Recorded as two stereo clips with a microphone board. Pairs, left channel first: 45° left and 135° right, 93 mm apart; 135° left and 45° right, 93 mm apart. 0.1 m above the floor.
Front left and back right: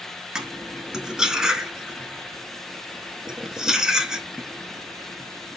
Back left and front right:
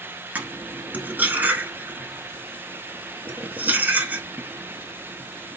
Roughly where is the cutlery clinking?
Ahead right.